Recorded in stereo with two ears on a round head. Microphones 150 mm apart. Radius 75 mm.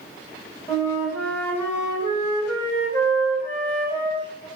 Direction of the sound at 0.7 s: 15° left (ahead or behind).